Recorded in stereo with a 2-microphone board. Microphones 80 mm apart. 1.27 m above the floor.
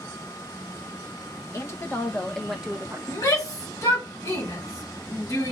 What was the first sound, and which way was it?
A woman speaking, 35° left (ahead or behind).